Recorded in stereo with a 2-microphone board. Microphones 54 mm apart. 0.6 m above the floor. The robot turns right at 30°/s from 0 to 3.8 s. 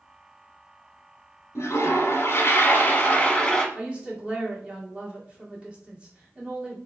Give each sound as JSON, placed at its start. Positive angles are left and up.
{"t": 1.6, "sound": "a toilet flushing", "azimuth_deg": 100, "distance_m": 0.8}
{"t": 3.8, "sound": "a woman speaking", "side_deg": -20, "distance_m": 1.6}